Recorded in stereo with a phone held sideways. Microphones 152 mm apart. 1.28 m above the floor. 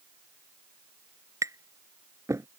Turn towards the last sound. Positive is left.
turn(degrees=-20)  # may be behind; listen again after turning